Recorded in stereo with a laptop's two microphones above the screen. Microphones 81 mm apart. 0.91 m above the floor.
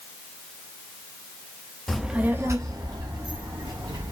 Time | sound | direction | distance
1.9 | a child speaking | 5° left (ahead or behind) | 0.5 m